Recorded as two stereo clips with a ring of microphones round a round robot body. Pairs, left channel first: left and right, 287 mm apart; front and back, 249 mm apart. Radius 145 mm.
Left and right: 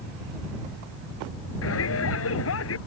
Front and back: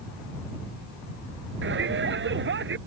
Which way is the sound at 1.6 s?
135° left.